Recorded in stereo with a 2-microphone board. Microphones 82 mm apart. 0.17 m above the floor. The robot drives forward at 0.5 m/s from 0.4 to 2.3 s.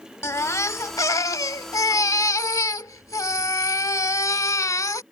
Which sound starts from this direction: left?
A baby crying, at 0.2 s.